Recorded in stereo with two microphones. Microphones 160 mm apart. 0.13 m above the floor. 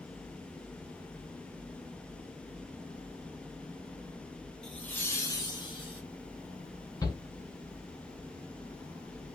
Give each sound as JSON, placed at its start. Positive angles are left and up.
{"t": 4.6, "sound": "laughter", "side_deg": 5, "distance_m": 1.4}
{"t": 7.0, "sound": "a shout", "side_deg": 25, "distance_m": 1.5}